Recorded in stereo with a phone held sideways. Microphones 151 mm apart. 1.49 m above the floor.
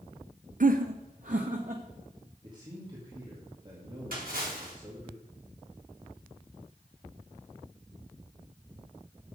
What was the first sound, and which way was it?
Laughter, 60° right (ahead or behind).